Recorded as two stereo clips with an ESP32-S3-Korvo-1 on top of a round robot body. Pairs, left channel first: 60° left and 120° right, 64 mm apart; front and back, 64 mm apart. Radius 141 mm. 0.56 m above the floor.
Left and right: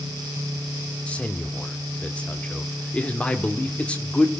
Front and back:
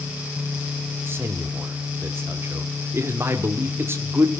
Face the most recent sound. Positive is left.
turn(degrees=130)